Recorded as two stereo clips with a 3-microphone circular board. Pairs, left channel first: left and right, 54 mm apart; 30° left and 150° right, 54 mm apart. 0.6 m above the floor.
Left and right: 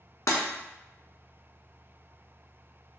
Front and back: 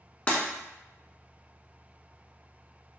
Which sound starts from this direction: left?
Breaking glass, at 0.3 s.